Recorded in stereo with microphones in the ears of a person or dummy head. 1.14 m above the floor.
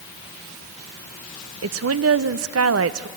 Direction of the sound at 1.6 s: 70° right (ahead or behind).